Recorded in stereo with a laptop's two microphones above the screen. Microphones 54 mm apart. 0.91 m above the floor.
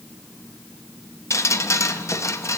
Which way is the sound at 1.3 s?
60° left (ahead or behind).